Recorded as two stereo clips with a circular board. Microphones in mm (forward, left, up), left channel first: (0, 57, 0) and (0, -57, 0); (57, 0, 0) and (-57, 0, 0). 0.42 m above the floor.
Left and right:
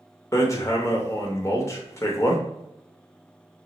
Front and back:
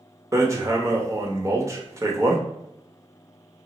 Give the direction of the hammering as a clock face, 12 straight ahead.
7 o'clock.